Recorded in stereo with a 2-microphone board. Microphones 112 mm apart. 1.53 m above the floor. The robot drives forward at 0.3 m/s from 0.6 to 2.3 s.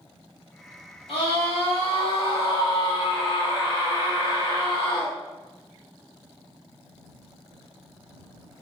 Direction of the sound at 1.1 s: 60° left (ahead or behind).